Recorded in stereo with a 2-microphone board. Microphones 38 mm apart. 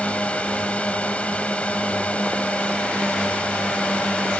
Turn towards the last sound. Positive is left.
turn(degrees=35)  # may be behind; listen again after turning